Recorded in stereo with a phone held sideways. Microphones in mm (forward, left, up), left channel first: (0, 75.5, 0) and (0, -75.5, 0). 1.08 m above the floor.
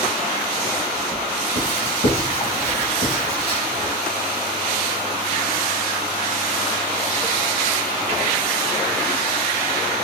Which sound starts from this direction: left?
Writing, at 1.6 s.